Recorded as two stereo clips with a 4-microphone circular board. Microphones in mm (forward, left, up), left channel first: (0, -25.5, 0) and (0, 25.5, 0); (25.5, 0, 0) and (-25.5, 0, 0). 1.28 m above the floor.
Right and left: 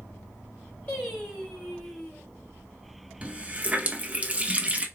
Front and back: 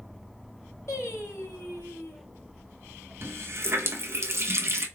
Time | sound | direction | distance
0.9 | singing | 30° right | 2.5 m
3.2 | a running tap | 150° left | 0.8 m